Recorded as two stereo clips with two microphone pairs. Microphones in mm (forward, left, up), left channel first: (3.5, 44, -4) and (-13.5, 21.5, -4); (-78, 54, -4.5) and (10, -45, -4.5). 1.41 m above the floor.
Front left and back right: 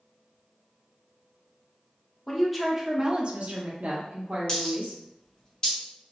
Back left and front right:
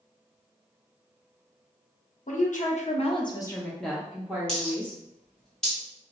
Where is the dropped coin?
50° left, 1.6 m.